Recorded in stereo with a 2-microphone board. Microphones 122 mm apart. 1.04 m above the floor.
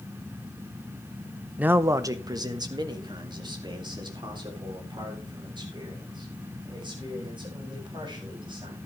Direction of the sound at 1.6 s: 10° right (ahead or behind).